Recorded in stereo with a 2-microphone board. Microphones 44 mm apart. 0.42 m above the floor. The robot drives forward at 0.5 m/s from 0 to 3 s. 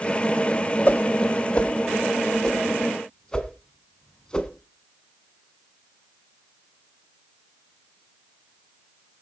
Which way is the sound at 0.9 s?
40° left (ahead or behind).